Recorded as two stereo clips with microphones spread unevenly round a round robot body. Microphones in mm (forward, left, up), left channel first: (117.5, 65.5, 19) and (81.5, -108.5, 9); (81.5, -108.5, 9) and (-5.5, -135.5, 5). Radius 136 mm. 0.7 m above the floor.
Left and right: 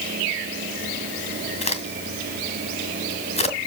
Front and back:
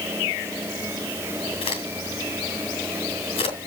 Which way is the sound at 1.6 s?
25° left.